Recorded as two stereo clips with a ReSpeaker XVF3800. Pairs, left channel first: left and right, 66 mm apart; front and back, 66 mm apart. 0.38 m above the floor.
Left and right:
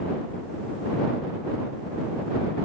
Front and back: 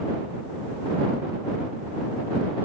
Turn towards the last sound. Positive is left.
No sound to turn to.